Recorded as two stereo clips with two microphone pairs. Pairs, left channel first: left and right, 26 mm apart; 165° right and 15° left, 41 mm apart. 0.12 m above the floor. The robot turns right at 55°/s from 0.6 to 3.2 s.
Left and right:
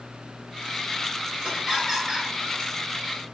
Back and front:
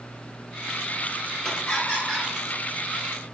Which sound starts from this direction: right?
Laughter, at 1.4 s.